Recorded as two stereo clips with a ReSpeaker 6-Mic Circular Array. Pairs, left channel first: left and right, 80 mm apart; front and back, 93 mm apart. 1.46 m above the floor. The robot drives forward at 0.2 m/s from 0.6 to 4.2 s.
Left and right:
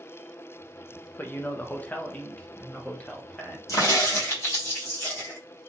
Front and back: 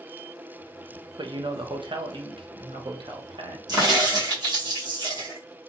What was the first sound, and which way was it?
A man speaking, 155° left.